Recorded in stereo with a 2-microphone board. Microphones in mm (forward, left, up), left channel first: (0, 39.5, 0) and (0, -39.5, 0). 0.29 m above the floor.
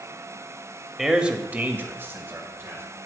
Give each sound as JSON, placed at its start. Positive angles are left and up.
{"t": 1.0, "sound": "a man speaking", "side_deg": -5, "distance_m": 0.9}